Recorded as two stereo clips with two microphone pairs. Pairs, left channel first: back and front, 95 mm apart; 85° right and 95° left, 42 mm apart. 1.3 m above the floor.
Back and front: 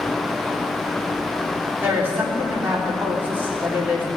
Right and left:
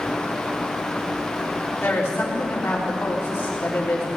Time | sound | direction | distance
1.8 | a woman speaking | 70° right | 3.5 m